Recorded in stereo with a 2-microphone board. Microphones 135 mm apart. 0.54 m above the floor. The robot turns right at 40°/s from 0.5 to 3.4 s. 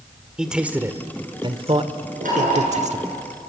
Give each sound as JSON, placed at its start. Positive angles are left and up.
{"t": 0.4, "sound": "a man speaking", "side_deg": -5, "distance_m": 1.6}
{"t": 2.2, "sound": "knocking", "side_deg": -75, "distance_m": 8.0}